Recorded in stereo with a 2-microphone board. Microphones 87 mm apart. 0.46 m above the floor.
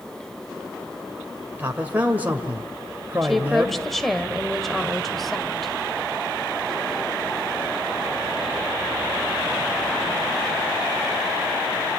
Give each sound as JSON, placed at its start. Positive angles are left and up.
{"t": 1.6, "sound": "a man speaking", "side_deg": -20, "distance_m": 1.7}
{"t": 3.2, "sound": "a woman speaking", "side_deg": 0, "distance_m": 1.8}